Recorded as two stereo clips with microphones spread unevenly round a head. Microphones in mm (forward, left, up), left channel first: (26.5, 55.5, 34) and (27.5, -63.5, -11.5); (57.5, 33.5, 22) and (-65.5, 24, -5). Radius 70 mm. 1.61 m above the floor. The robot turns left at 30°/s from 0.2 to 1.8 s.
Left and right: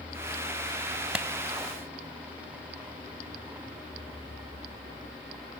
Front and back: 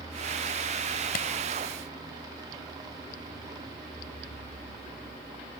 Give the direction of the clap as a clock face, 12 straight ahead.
12 o'clock.